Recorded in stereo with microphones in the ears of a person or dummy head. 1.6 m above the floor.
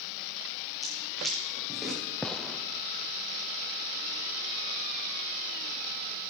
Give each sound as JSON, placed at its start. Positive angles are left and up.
{"t": 0.8, "sound": "footsteps", "side_deg": 0, "distance_m": 5.5}
{"t": 2.2, "sound": "a gunshot", "side_deg": 5, "distance_m": 0.5}